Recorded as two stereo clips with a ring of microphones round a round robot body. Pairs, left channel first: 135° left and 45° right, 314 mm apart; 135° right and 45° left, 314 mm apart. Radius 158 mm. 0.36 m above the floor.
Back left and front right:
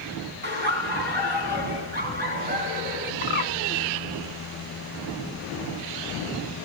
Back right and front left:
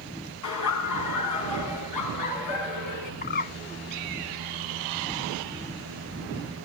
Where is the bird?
Straight behind, 0.6 m.